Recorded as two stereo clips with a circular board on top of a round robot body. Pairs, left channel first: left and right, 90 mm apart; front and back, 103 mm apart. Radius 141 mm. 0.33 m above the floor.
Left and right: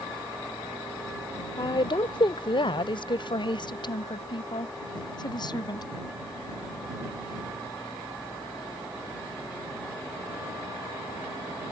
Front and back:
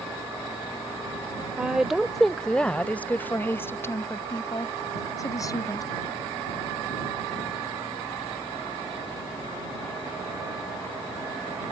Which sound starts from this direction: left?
A woman speaking, at 1.6 s.